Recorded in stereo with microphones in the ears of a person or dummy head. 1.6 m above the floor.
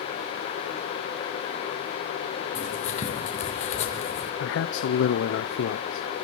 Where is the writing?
40° left (ahead or behind), 3 m.